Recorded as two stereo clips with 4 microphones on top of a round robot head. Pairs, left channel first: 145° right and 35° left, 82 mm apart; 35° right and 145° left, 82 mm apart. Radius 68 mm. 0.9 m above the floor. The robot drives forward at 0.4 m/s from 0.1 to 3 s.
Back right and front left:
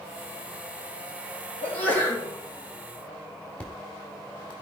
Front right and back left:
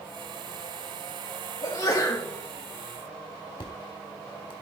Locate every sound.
1.6 s a sneeze: 75° right, 3 m; by 2.3 s 80° right, 3 m
3.6 s an explosion: 65° right, 1.1 m